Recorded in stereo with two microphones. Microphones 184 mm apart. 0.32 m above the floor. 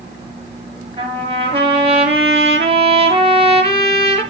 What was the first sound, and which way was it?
A trumpet, 30° right (ahead or behind).